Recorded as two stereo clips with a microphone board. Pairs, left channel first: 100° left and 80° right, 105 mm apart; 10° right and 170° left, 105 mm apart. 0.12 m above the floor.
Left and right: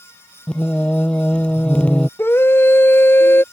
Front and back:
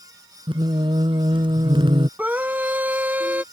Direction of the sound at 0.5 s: 175° left.